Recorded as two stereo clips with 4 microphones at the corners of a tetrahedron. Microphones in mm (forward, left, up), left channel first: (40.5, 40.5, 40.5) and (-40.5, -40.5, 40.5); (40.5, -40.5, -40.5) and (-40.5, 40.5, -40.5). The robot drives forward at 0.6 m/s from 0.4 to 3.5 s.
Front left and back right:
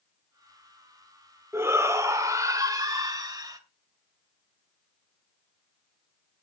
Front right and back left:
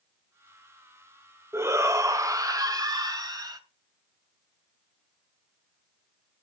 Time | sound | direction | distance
1.5 | a shout | straight behind | 1.3 m